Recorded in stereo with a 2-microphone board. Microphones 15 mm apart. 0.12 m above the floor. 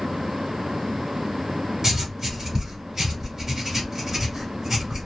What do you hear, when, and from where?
1.8 s writing: 30° right (ahead or behind), 1.2 m